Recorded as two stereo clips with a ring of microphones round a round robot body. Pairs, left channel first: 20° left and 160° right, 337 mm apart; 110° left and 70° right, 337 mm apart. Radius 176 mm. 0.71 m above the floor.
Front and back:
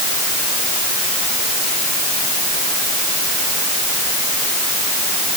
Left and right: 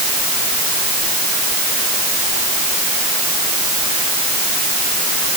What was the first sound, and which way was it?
Only background noise.